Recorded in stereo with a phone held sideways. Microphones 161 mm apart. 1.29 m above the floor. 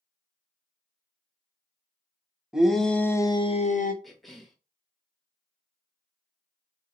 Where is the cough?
Centre (ahead or behind), 1.2 m.